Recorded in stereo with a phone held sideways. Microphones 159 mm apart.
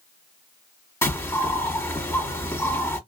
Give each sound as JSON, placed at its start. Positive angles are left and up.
{"t": 1.0, "sound": "a bird", "side_deg": 20, "distance_m": 1.2}